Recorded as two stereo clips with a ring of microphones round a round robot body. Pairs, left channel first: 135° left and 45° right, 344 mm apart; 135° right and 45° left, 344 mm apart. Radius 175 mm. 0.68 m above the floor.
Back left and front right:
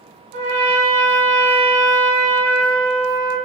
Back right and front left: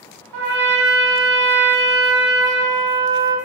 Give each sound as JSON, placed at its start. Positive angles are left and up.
{"t": 0.3, "sound": "a trumpet", "azimuth_deg": 10, "distance_m": 0.9}